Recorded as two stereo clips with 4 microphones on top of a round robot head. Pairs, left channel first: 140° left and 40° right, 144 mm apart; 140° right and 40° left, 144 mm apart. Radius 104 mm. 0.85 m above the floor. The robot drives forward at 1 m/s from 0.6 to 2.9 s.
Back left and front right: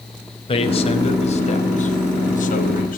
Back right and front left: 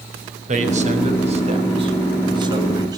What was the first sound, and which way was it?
A man speaking, 85° left.